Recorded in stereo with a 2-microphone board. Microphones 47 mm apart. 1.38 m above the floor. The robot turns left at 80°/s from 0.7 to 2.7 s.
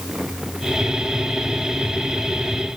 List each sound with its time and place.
Only background noise.